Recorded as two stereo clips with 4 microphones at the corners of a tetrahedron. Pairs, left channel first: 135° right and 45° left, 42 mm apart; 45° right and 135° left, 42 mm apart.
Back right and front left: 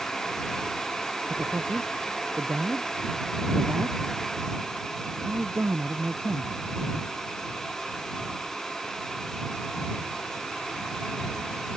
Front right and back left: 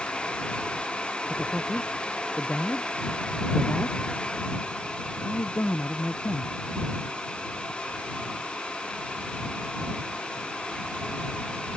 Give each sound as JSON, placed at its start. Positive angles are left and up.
{"t": 1.3, "sound": "a man speaking", "azimuth_deg": 25}